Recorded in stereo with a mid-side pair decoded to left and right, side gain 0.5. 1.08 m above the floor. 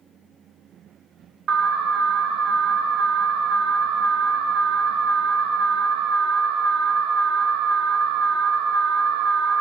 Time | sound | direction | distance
1.5 | an alarm | 55° right | 1.6 m